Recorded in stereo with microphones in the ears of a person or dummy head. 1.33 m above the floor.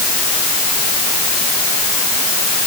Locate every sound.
Only background noise.